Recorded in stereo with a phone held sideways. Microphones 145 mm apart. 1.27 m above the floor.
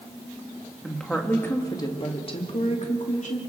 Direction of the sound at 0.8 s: Centre (ahead or behind).